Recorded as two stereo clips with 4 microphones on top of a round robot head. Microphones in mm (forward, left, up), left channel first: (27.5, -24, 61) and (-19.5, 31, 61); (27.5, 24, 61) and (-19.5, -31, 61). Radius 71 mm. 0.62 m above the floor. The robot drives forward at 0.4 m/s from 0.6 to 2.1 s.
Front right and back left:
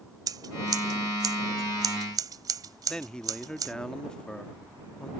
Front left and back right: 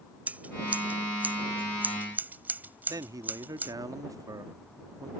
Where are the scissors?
160° left; by 3.7 s 165° left.